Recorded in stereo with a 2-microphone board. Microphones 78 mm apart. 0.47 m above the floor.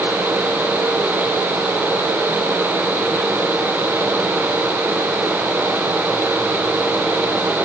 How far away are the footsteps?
I don't hear footsteps.